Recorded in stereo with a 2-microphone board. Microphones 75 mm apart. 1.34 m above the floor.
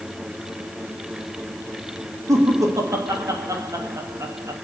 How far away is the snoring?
I don't hear snoring.